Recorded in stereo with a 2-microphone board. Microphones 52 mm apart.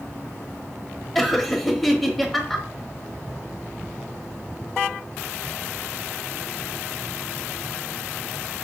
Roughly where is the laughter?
Centre.